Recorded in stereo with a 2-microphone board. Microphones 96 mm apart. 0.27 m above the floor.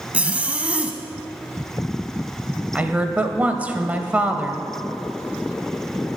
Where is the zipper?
15° right (ahead or behind), 1.0 m.